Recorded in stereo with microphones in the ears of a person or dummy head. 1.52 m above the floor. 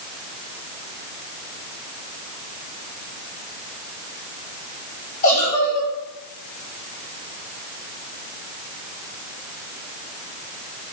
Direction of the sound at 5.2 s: 40° left (ahead or behind).